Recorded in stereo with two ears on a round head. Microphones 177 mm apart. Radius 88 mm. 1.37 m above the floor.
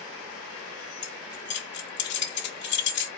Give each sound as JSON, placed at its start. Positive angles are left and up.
{"t": 1.0, "sound": "keys jangling", "side_deg": 55, "distance_m": 1.5}